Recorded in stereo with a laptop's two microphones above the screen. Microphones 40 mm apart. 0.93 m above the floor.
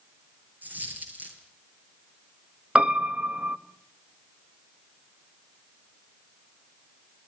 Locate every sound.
0.6 s a dropped coin: 45° right (ahead or behind), 9 m
2.8 s a piano: 30° right (ahead or behind), 1.5 m